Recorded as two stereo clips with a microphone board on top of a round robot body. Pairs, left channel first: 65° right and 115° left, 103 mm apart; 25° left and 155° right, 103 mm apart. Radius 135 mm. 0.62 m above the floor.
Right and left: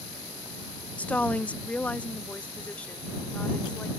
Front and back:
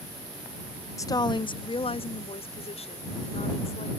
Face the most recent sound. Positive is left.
turn(degrees=10)